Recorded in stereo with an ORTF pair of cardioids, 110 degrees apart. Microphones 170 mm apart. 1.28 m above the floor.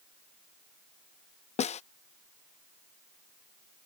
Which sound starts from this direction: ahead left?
A snare drum, at 1.6 s.